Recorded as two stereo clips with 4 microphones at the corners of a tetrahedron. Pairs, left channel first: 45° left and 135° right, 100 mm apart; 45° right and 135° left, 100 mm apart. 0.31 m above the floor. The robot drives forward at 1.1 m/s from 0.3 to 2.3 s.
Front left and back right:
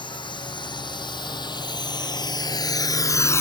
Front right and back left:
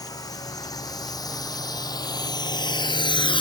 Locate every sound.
0.0 s a drone: 5° left; by 3.4 s 20° right